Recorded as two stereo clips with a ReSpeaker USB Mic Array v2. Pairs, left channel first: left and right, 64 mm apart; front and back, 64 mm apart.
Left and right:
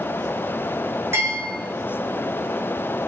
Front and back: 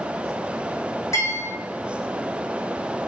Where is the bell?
40° right, 6.5 m.